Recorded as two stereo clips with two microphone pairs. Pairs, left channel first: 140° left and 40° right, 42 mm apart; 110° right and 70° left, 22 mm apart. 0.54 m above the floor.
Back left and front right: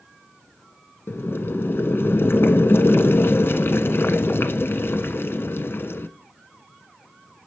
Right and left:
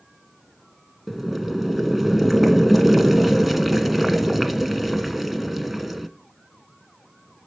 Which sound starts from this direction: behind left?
Boiling, at 1.1 s.